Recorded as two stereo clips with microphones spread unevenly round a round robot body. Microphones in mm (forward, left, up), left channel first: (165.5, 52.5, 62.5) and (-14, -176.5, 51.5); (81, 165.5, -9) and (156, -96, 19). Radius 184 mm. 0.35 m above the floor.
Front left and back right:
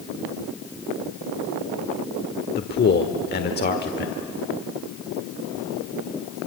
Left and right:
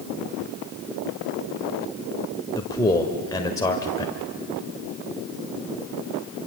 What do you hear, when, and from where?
2.5 s a man speaking: 50° left, 1.4 m